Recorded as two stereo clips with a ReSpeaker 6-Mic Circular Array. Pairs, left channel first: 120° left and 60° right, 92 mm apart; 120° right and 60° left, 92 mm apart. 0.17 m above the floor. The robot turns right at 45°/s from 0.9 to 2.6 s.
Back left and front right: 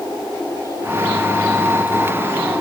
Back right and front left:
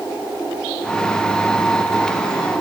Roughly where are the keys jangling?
I don't hear keys jangling.